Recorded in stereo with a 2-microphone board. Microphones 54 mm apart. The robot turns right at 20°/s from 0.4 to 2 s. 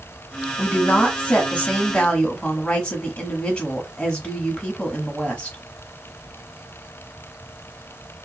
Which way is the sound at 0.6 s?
30° left (ahead or behind).